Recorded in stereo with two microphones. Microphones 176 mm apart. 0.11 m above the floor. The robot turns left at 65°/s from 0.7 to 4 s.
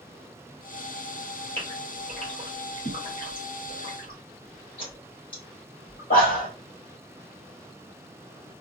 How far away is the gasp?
About 2.5 m.